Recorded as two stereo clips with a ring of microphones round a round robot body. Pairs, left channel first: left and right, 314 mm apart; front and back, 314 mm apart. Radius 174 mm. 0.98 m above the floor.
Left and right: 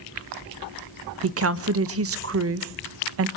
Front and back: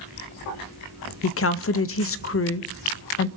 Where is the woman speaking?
45° right, 0.7 m.